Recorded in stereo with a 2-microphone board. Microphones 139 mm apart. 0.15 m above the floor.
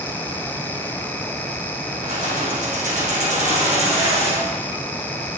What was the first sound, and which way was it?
Keys jangling, 75° right (ahead or behind).